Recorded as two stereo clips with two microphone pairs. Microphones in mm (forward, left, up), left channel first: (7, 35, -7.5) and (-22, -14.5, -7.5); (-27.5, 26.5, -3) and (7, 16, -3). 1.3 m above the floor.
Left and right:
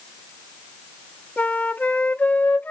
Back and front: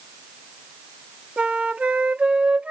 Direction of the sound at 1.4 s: 15° left.